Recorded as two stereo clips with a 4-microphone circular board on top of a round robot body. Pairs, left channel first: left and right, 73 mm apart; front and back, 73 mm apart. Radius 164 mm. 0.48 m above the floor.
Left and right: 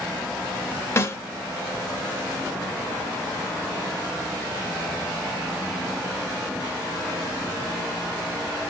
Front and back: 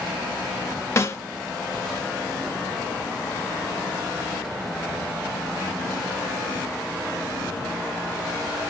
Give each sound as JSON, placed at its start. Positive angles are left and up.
{"t": 1.0, "sound": "a snare drum", "azimuth_deg": 45, "distance_m": 1.0}